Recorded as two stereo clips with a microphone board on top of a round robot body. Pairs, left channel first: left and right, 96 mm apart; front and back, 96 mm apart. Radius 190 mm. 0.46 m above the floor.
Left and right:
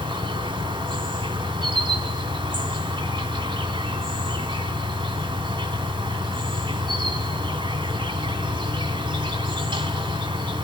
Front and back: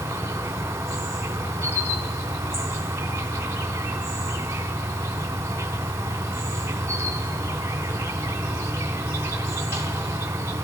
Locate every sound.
0.0 s an insect: 115° right, 2 m